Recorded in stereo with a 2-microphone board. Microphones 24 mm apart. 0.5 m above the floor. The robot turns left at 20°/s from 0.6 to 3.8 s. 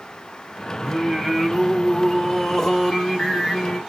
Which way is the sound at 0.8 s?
155° right.